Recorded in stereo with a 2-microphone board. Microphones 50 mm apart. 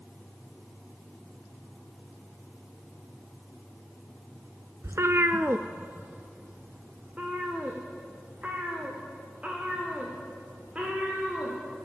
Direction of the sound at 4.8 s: 75° right (ahead or behind).